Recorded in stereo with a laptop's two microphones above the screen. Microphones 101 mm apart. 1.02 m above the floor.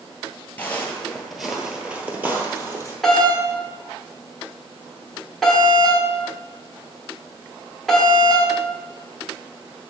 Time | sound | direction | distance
0.6 | footsteps | 20° left (ahead or behind) | 1.0 m
3.0 | a doorbell | centre (ahead or behind) | 1.4 m